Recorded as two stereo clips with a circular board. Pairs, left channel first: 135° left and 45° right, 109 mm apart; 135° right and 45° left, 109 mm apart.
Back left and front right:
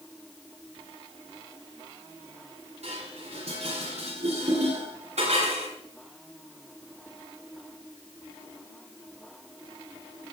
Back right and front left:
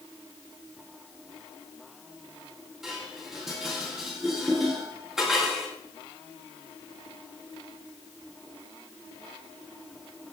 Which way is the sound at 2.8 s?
40° right.